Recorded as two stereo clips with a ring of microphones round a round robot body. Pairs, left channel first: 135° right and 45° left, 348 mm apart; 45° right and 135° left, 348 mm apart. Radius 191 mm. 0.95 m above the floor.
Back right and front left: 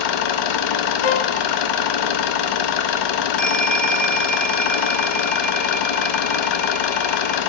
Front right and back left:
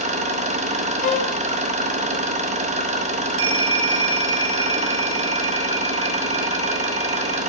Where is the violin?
115° right, 1.0 m.